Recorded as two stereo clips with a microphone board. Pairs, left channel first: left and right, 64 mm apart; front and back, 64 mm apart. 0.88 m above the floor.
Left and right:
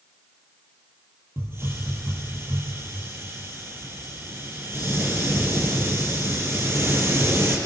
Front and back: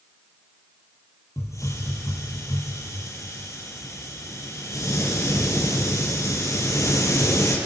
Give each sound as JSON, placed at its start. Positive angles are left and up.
{"t": 1.4, "sound": "a hiss", "azimuth_deg": -40, "distance_m": 6.0}